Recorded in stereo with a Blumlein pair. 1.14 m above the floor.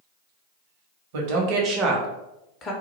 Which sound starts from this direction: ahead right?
A woman speaking, at 1.1 s.